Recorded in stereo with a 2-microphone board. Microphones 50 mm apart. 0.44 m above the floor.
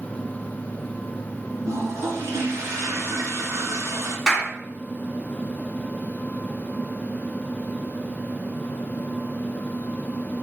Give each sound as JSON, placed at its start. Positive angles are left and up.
{"t": 1.6, "sound": "a toilet flushing", "side_deg": -80, "distance_m": 2.5}
{"t": 4.3, "sound": "a clap", "side_deg": -20, "distance_m": 4.0}